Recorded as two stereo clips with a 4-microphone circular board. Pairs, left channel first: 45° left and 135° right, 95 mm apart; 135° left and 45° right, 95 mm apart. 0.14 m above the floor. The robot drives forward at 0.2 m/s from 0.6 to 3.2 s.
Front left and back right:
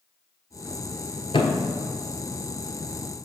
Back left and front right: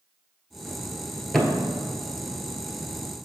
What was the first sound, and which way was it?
A thud, 45° left.